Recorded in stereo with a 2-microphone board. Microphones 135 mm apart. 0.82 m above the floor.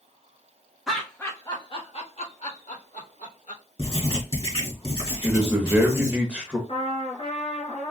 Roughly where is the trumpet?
Left.